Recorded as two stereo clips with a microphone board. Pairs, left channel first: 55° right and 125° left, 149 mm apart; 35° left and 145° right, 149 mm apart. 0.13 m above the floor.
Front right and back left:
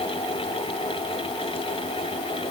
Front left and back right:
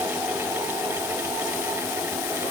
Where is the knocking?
No knocking in this recording.